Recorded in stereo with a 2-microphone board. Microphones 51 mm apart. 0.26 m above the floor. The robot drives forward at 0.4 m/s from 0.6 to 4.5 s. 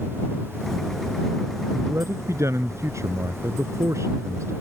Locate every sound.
1.7 s a man speaking: 65° right (ahead or behind); by 4.5 s 70° right (ahead or behind)